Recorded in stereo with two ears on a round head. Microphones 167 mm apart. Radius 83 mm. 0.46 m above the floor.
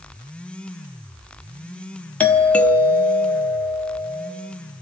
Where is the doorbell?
5° left (ahead or behind), 1.1 m.